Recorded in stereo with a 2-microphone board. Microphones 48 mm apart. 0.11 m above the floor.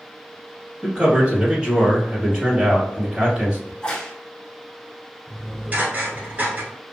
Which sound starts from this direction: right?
Dishes clattering, at 5.3 s.